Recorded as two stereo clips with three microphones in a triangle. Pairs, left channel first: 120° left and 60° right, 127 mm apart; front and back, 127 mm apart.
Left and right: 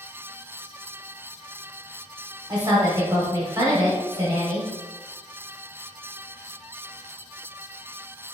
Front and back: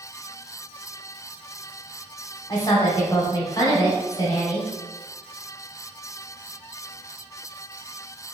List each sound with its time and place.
2.5 s a woman speaking: 30° right, 1.0 m